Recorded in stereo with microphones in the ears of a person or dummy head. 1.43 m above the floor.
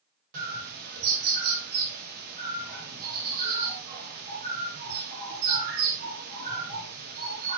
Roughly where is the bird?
Right.